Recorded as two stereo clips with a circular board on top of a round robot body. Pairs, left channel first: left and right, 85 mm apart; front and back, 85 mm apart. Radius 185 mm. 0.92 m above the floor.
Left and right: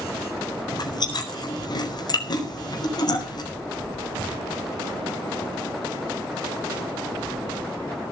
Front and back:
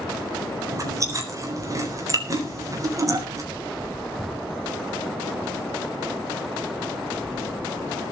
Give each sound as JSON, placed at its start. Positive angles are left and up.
{"t": 0.7, "sound": "chewing", "azimuth_deg": 130, "distance_m": 4.0}